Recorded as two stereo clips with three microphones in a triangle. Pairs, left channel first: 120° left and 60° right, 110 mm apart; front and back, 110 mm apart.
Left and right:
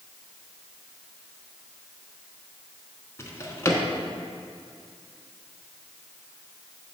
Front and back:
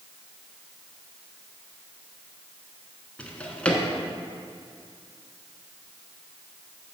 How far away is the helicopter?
No helicopter in this recording.